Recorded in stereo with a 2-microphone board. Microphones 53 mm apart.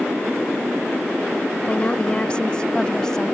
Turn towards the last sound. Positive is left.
turn(degrees=10)  # may be behind; listen again after turning